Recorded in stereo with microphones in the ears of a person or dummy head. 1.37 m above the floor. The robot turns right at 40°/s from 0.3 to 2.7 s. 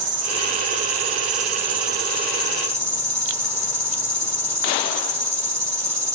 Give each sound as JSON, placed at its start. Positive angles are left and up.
{"t": 0.0, "sound": "an insect", "azimuth_deg": -115, "distance_m": 3.5}